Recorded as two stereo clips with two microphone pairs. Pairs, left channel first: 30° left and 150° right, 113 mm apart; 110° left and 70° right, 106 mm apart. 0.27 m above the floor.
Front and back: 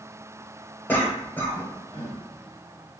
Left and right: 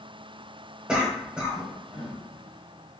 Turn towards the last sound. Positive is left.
turn(degrees=-5)